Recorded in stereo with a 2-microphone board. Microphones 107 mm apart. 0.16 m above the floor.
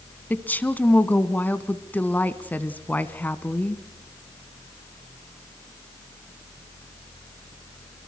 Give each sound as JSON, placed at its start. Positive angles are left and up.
{"t": 0.3, "sound": "a woman speaking", "side_deg": 15, "distance_m": 1.1}